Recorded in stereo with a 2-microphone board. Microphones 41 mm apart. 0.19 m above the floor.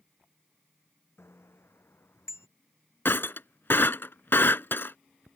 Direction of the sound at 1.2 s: 85° left.